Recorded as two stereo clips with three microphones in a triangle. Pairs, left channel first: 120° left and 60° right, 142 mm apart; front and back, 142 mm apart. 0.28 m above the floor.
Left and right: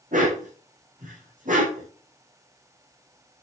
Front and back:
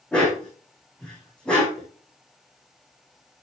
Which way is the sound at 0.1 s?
85° right.